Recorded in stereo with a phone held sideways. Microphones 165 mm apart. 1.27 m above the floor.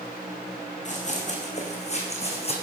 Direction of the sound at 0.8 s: 50° left (ahead or behind).